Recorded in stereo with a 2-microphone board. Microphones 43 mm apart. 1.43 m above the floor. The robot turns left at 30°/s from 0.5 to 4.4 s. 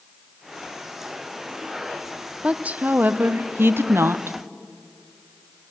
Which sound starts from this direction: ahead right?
A woman speaking, at 2.4 s.